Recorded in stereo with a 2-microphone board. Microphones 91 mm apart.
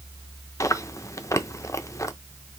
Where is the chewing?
35° left (ahead or behind), 0.5 m.